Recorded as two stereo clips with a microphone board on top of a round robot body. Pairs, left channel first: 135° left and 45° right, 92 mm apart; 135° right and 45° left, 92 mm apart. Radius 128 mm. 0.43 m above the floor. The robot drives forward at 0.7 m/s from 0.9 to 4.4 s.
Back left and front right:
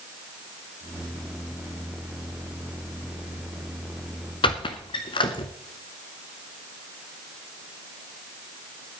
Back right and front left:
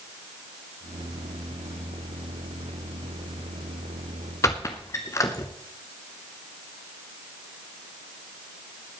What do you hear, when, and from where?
4.4 s a squeak: 170° left, 1.1 m